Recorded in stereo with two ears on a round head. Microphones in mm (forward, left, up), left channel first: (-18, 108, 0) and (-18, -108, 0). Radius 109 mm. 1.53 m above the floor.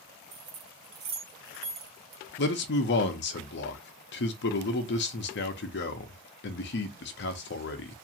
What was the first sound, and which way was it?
Keys jangling, 60° right (ahead or behind).